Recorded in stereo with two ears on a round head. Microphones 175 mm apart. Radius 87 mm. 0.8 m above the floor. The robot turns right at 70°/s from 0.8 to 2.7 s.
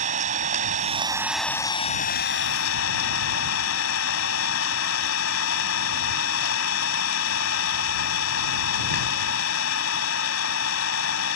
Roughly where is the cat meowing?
I don't hear a cat meowing.